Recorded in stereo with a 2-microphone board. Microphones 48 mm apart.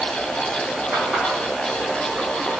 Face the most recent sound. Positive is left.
turn(degrees=-35)  # may be behind; listen again after turning